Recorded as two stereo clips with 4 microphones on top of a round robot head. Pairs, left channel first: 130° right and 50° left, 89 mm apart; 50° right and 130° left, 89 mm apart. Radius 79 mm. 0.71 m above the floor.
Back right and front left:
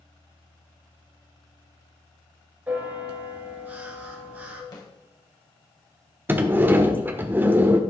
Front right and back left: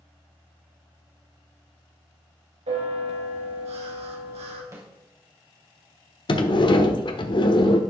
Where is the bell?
125° left, 3.5 m.